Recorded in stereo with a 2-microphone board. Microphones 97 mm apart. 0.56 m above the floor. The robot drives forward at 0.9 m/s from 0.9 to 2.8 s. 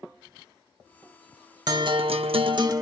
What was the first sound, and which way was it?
A guitar, 45° right (ahead or behind).